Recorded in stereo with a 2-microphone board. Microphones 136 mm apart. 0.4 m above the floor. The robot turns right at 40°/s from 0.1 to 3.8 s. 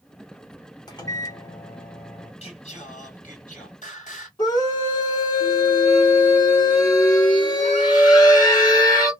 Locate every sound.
0.9 s a microwave: 115° left, 0.8 m; by 2.3 s 175° left, 0.8 m
2.4 s singing: 50° left, 1.7 m; by 4.3 s 105° left, 1.7 m
4.4 s a scream: 30° left (ahead or behind), 1.5 m